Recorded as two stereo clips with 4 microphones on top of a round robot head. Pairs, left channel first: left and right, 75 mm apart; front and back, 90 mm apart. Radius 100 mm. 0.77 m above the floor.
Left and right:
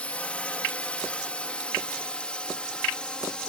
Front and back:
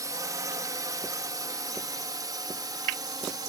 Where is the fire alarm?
I don't hear a fire alarm.